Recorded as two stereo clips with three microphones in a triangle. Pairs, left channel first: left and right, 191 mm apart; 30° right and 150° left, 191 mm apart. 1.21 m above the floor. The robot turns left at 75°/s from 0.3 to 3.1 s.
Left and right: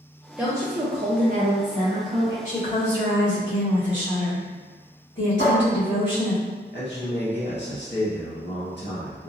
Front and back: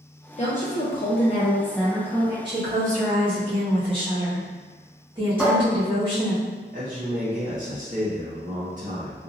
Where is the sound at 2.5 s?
140° left, 1.4 m; by 6.4 s 90° left, 1.4 m.